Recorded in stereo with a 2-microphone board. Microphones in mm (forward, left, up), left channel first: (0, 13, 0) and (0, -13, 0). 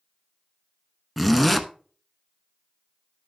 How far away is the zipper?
About 0.9 m.